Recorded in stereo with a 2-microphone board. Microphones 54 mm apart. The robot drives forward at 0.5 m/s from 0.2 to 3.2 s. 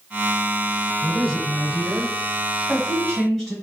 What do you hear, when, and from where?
1.0 s a woman speaking: 5° left (ahead or behind), 0.9 m